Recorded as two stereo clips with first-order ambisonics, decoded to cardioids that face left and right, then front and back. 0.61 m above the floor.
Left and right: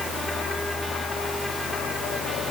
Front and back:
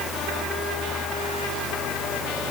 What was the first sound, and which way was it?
Only background noise.